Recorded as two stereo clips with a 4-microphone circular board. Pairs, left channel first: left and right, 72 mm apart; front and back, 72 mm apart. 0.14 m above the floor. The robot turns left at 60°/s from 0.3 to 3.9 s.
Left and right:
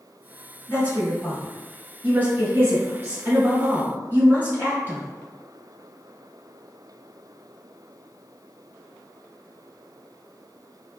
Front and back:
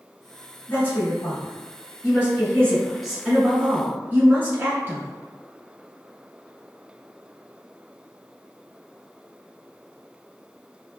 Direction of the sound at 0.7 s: 55° left.